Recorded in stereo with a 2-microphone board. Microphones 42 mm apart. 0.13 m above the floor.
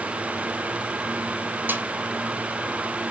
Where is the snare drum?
50° right (ahead or behind), 1.8 m.